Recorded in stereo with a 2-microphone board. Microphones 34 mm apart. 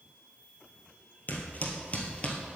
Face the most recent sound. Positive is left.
turn(degrees=30)  # may be behind; listen again after turning